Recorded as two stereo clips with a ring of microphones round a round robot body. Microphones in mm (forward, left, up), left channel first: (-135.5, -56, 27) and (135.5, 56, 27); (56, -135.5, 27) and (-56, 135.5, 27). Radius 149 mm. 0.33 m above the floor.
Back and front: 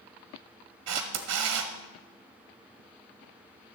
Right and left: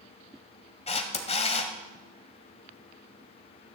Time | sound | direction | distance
0.9 | a camera shutter | straight ahead | 1.4 m